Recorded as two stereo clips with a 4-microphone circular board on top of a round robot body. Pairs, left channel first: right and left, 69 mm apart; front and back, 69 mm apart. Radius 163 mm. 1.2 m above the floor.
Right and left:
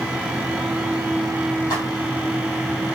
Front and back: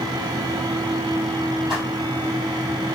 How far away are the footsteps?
About 2.5 m.